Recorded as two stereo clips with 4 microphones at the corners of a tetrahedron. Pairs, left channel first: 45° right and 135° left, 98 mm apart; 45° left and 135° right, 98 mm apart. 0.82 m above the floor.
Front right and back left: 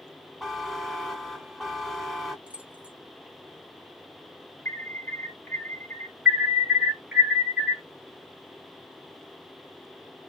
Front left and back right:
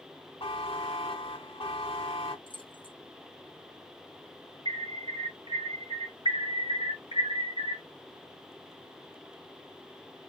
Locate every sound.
0.4 s a buzzer: 45° left, 2.0 m
2.5 s keys jangling: 60° left, 0.7 m
4.7 s an alarm: 110° right, 1.3 m
6.2 s an alarm: 150° right, 2 m